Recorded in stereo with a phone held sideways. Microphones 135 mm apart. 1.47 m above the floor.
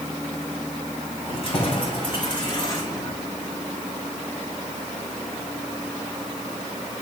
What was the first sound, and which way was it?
Keys jangling, 45° left (ahead or behind).